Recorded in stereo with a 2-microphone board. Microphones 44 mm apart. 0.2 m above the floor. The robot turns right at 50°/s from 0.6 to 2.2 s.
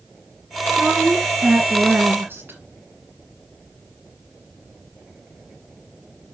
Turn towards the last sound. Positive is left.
turn(degrees=-85)